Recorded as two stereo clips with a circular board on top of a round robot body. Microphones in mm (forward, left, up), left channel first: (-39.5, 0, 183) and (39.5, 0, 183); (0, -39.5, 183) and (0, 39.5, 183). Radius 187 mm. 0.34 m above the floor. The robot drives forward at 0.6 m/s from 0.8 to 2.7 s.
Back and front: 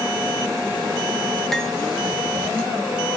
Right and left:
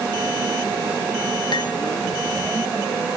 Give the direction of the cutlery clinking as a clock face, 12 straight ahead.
3 o'clock.